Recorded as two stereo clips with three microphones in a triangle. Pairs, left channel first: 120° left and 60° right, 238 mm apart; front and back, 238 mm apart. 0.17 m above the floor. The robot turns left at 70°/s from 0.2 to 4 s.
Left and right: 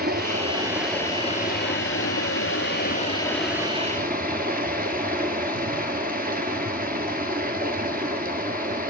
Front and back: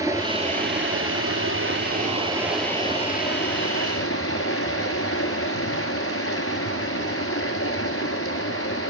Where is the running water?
105° right, 1.4 m; by 8.9 s 10° right, 1.4 m.